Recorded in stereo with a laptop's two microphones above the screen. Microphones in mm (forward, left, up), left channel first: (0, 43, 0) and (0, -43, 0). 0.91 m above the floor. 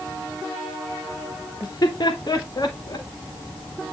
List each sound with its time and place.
1.6 s laughter: 45° left (ahead or behind), 1.4 m